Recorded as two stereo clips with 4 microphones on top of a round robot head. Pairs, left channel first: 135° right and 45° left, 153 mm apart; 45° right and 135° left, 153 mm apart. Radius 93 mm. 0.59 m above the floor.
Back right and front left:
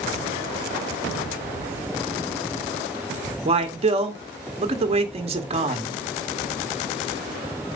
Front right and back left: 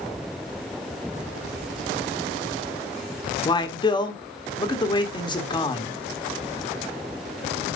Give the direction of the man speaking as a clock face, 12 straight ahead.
12 o'clock.